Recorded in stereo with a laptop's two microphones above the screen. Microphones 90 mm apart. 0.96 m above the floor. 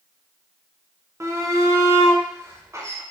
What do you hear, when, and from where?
1.2 s a shout: 30° right (ahead or behind), 0.7 m